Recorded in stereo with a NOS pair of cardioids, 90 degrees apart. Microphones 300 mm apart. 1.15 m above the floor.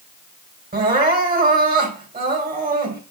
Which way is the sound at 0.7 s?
30° right.